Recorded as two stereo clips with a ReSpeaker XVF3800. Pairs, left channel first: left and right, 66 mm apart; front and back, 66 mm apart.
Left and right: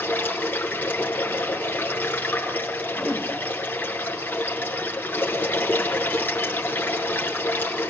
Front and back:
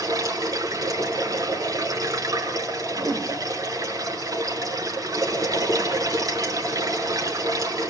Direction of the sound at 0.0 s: 155° left.